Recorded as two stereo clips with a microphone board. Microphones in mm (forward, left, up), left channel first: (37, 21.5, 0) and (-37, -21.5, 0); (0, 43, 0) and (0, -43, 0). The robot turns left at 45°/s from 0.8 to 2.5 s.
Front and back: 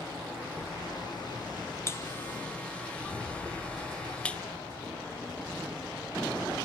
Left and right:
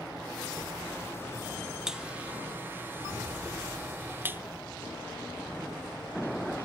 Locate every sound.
1.9 s a buzzer: 10° right, 0.6 m; by 4.4 s 40° right, 0.6 m